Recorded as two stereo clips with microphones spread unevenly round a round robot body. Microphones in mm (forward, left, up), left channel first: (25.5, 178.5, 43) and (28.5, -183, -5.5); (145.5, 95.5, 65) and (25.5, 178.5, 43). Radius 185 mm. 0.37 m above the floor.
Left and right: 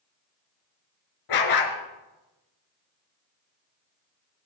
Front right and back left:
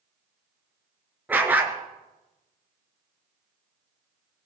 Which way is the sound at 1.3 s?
65° left.